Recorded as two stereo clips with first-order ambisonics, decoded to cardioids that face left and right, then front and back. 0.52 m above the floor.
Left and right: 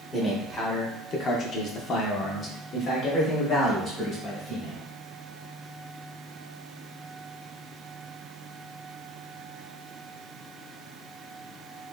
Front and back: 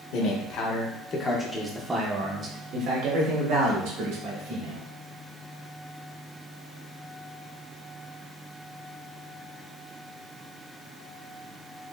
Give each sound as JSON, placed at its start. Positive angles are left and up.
{"t": 0.1, "sound": "a man speaking", "azimuth_deg": 15, "distance_m": 1.1}